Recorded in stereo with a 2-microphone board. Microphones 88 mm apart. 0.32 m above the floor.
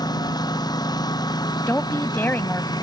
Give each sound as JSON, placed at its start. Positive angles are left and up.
{"t": 0.0, "sound": "a lawn mower", "side_deg": 50}
{"t": 1.7, "sound": "a woman speaking", "side_deg": 25}